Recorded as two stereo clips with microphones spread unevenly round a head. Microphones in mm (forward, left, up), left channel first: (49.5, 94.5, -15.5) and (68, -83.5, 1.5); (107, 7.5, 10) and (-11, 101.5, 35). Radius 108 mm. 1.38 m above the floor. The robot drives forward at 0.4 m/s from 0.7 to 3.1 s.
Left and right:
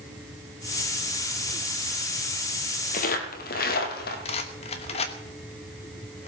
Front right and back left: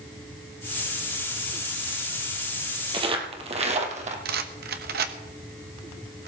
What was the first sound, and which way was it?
Footsteps, 120° left.